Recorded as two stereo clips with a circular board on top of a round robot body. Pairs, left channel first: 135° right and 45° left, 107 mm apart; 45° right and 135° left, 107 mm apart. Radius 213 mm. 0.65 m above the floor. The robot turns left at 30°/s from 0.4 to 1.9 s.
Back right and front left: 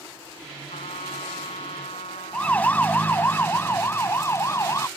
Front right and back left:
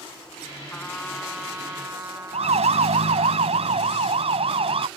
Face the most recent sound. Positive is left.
turn(degrees=165)